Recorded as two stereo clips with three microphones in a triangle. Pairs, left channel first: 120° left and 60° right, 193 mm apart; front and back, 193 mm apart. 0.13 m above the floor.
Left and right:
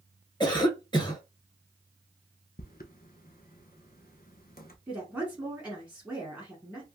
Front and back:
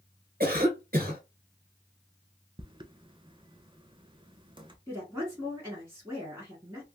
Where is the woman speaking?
135° right, 1.2 m.